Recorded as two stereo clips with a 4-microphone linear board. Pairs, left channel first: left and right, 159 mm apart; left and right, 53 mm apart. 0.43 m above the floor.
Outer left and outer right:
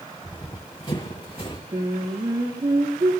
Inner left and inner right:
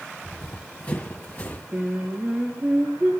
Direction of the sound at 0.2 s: 30° left (ahead or behind).